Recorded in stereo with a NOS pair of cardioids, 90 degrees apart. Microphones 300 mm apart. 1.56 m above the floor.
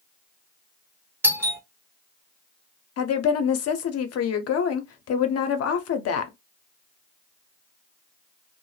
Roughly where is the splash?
No splash in this recording.